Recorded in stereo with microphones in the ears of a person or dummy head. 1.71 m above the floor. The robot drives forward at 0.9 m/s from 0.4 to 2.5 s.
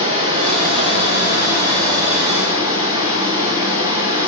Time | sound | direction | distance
0.0 | running water | 30° right (ahead or behind) | 3.5 m